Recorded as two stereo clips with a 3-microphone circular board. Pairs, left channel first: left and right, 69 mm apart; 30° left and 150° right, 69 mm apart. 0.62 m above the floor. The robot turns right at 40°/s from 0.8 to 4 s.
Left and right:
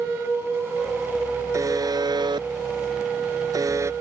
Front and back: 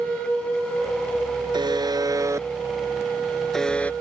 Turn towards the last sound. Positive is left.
turn(degrees=-35)